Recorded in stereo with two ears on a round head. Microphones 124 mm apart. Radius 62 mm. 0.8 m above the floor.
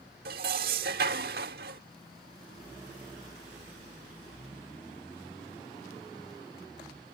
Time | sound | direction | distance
0.2 | dishes clattering | 80° right | ?